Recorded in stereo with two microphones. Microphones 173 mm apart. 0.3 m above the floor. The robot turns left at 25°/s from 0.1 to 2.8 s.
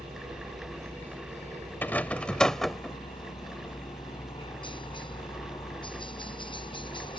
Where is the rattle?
10° left (ahead or behind); by 3.0 s centre (ahead or behind).